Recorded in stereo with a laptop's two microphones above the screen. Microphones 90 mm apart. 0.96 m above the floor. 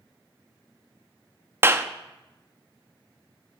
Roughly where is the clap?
Right.